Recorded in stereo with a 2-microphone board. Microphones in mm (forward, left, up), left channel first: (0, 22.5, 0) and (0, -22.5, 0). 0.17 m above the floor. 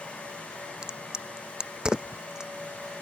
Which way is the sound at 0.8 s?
20° right (ahead or behind).